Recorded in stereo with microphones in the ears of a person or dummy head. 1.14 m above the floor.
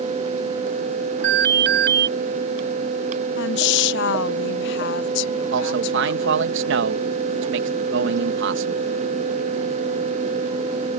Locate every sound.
1.2 s an alarm: 50° right (ahead or behind)
3.4 s a woman speaking: 70° left (ahead or behind)
5.5 s a man speaking: 60° right (ahead or behind)